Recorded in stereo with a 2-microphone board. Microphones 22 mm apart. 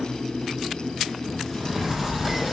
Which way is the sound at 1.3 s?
Centre (ahead or behind).